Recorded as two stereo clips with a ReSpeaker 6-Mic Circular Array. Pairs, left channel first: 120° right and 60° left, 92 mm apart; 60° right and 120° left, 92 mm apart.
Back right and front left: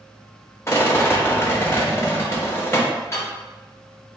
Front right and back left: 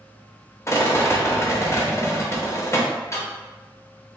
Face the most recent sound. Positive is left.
turn(degrees=-85)